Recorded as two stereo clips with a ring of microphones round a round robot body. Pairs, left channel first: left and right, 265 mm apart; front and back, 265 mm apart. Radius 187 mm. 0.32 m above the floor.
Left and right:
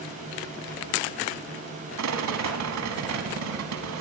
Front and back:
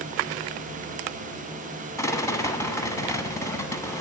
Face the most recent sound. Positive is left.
turn(degrees=-80)